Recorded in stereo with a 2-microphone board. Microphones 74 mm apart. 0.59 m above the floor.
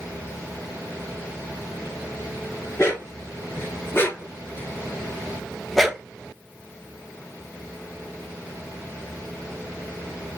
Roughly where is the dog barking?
Left.